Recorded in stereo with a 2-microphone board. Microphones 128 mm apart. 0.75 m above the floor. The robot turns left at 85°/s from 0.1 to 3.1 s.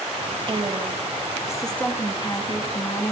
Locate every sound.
0.5 s a woman speaking: 85° right, 1.2 m; by 3.1 s 50° left, 1.2 m